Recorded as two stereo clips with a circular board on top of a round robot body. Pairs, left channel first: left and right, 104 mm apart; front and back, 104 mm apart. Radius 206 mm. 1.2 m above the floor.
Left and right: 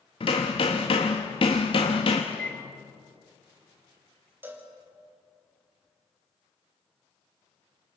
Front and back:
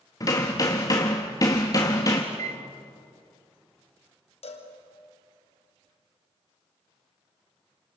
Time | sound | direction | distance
0.2 | hammering | 55° left | 0.7 m
2.3 | a microwave | 170° left | 1.4 m
4.4 | a cowbell | 20° right | 2.5 m